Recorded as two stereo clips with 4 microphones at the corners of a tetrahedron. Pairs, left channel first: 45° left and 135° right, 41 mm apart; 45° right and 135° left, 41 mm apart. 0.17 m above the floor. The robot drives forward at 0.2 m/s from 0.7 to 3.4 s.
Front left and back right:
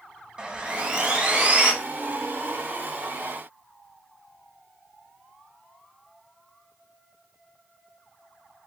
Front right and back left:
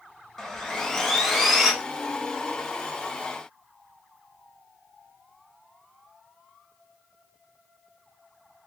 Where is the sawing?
115° right, 0.7 m; by 1.7 s 140° right, 0.8 m.